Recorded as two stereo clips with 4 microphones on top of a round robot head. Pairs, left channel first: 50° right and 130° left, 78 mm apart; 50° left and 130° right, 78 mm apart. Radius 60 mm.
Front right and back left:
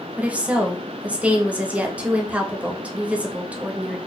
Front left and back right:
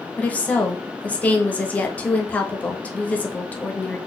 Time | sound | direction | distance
0.2 | a woman speaking | 85° left | 0.8 m